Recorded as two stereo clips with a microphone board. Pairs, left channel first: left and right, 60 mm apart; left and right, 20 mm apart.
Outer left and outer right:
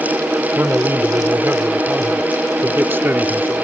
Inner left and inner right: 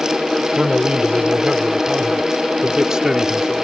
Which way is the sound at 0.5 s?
40° right (ahead or behind).